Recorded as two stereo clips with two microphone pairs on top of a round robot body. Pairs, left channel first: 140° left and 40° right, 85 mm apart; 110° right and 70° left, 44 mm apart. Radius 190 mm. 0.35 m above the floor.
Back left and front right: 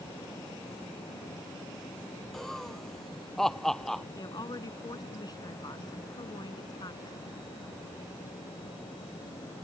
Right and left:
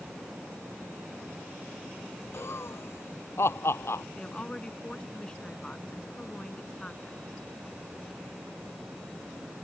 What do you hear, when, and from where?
2.3 s laughter: 135° right
4.2 s a woman speaking: straight behind